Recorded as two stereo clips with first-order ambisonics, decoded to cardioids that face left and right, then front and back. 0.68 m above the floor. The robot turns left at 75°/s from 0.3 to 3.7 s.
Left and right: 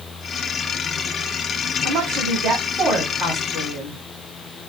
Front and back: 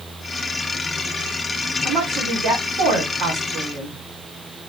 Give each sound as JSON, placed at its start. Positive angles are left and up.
{"t": 1.8, "sound": "a woman speaking", "azimuth_deg": -90, "distance_m": 1.8}